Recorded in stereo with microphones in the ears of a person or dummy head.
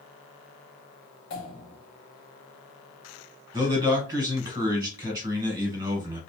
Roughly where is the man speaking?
Right.